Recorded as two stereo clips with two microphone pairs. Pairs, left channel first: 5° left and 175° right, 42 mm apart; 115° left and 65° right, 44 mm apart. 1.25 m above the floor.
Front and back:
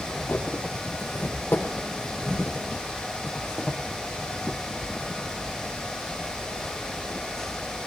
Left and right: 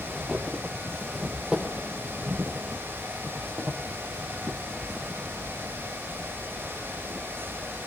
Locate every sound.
0.1 s footsteps: 10° left, 3.5 m; by 7.9 s 85° right, 5 m